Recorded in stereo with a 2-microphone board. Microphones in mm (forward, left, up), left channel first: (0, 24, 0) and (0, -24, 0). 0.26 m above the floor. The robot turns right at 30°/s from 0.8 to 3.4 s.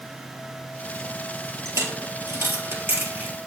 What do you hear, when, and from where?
1.6 s a dropped coin: 85° right, 1.8 m; by 3.4 s 40° right (ahead or behind), 1.8 m